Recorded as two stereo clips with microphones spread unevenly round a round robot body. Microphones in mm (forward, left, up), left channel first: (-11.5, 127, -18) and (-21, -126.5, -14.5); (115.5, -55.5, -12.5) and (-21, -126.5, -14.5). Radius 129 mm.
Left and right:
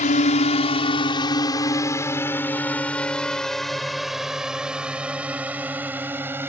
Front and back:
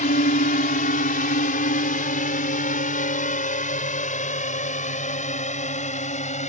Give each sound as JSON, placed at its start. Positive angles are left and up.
{"t": 0.0, "sound": "a drone", "azimuth_deg": 35}